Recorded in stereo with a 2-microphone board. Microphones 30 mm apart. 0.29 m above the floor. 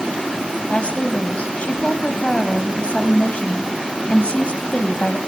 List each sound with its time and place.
0.7 s a woman speaking: 45° left (ahead or behind), 2 m